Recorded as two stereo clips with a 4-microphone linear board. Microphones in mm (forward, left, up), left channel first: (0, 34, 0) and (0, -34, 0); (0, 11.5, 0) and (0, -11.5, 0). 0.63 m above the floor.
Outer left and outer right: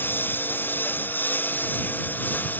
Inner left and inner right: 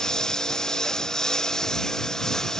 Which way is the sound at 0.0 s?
30° left (ahead or behind).